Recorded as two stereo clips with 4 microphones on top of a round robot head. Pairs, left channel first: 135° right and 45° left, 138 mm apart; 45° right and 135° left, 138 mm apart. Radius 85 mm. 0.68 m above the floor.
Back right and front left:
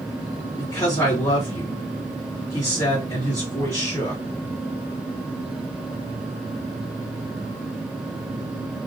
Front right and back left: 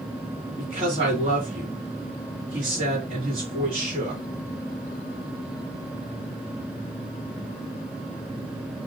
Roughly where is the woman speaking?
Behind.